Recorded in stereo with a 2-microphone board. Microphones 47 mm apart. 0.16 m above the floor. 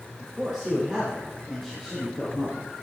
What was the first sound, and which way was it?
A man speaking, 15° right (ahead or behind).